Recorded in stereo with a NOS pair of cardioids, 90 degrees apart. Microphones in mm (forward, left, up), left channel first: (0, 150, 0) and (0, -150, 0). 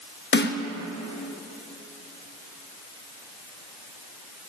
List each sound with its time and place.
0.3 s a snare drum: 35° left, 0.9 m